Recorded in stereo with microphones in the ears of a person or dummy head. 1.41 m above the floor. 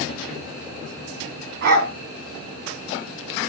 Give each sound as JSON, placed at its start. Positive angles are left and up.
{"t": 1.6, "sound": "a dog barking", "side_deg": -55, "distance_m": 3.5}